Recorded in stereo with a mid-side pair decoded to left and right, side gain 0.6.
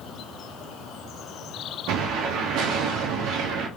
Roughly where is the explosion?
Ahead right.